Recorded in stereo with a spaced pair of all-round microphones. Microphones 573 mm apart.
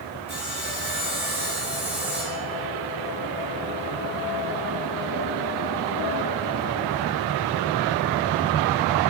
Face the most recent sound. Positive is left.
turn(degrees=-30)  # may be behind; listen again after turning